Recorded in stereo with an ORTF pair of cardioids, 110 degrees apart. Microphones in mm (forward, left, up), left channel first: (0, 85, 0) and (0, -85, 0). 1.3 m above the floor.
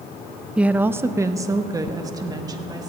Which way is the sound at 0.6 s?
5° right.